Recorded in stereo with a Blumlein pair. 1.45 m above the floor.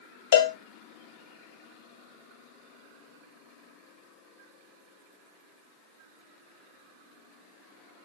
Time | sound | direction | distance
0.3 | a cowbell | 60° left | 1.0 m